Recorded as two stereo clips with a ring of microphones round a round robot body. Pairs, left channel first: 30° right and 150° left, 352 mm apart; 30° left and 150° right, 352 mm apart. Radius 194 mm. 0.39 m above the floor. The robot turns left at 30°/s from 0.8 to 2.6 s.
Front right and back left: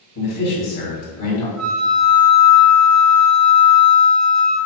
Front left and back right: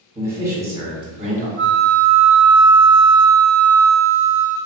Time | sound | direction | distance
0.1 | a man speaking | 70° right | 1.7 m
1.6 | a flute | 165° left | 0.7 m